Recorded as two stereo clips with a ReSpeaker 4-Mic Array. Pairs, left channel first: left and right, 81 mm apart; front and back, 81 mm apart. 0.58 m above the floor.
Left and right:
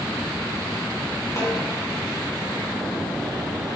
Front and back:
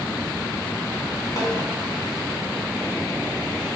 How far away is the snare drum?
About 4 m.